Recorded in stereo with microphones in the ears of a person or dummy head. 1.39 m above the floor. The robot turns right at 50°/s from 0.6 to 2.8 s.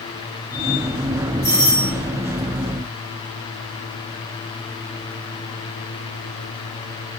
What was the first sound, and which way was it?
A doorbell, 25° right (ahead or behind).